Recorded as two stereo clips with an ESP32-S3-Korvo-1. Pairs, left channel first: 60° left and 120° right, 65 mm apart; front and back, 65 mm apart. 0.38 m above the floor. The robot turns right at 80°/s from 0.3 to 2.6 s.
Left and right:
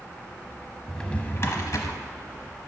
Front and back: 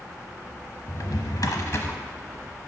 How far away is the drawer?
About 0.9 m.